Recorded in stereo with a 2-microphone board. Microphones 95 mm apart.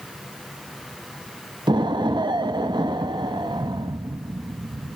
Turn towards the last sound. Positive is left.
turn(degrees=-55)  # may be behind; listen again after turning